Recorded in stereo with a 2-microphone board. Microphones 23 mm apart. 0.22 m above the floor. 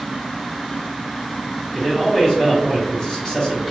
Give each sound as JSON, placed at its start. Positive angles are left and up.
{"t": 1.7, "sound": "a man speaking", "side_deg": 35, "distance_m": 1.9}